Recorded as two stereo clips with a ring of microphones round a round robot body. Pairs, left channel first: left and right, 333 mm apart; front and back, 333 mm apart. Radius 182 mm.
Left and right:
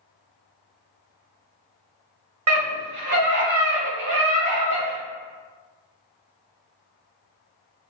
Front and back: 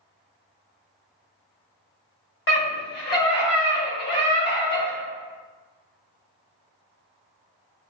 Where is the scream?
50° right, 1.3 m; by 5.0 s 75° right, 3 m.